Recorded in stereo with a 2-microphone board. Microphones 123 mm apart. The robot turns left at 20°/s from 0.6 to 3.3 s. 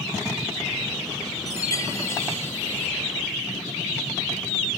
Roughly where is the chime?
Left.